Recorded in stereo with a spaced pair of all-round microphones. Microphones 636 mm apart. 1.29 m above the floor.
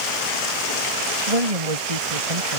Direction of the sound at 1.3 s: 65° right (ahead or behind).